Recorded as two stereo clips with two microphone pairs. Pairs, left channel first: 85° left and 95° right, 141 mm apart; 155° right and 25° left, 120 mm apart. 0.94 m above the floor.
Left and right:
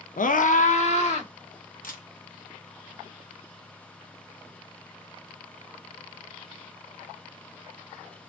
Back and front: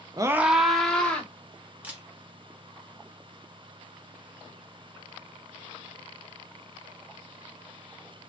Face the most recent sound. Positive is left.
turn(degrees=100)